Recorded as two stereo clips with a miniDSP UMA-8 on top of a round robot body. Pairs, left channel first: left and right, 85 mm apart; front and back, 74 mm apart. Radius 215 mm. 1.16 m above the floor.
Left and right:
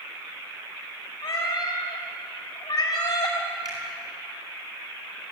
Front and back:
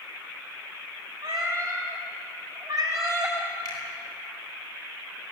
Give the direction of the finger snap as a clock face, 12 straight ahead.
1 o'clock.